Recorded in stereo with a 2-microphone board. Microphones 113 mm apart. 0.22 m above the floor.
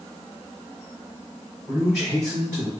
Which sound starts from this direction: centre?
A man speaking, at 1.7 s.